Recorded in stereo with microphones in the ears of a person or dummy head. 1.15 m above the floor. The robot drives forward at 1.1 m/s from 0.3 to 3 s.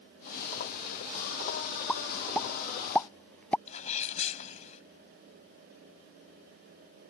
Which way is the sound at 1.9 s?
5° left (ahead or behind).